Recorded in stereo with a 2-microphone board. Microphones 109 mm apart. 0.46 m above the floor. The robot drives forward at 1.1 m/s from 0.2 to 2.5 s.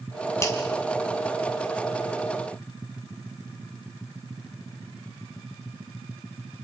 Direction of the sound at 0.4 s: 25° left (ahead or behind).